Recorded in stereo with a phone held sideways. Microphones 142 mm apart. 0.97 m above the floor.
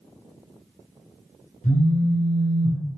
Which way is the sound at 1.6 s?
75° left (ahead or behind).